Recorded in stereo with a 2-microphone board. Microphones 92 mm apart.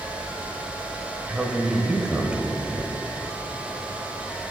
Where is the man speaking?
10° right (ahead or behind), 1.0 m.